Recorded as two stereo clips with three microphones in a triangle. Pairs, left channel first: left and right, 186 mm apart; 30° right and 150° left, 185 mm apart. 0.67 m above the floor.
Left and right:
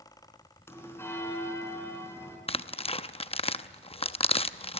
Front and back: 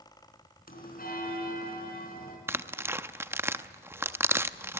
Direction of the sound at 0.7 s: 10° left.